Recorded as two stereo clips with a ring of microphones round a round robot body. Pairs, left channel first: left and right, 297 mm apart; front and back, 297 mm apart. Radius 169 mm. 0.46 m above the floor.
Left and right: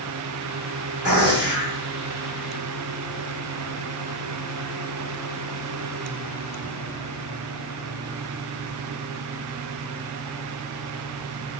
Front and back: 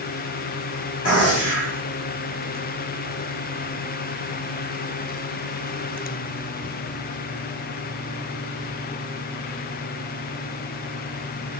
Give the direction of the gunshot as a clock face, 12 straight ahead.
12 o'clock.